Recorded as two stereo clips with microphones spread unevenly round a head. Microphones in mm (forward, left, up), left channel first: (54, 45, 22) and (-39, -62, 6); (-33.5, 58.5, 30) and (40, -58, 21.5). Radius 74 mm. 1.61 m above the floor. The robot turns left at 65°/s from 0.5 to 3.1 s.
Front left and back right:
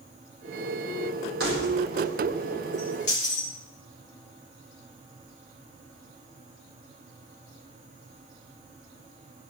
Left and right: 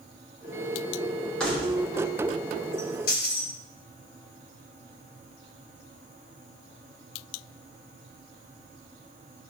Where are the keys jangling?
155° right, 4 m; by 3.5 s 95° left, 4 m.